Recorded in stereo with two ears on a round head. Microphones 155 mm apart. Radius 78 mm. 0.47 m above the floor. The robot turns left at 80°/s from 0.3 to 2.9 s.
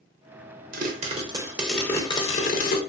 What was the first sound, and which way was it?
A pop, 100° right.